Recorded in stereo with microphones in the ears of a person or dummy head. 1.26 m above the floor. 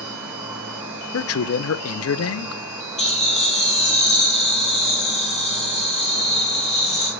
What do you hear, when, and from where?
0.0 s an insect: 10° right (ahead or behind), 4 m
1.1 s a man speaking: 70° left (ahead or behind), 0.6 m
3.0 s laughter: 35° left (ahead or behind), 2 m